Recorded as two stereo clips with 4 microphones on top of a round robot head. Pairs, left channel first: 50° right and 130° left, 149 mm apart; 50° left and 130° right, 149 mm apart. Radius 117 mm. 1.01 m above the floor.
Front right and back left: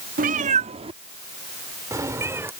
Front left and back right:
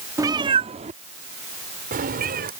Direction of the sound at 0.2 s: 160° left.